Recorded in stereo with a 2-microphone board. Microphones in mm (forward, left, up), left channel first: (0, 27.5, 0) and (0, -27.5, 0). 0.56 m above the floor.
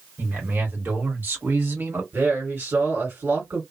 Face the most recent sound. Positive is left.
turn(degrees=-40)  # may be behind; listen again after turning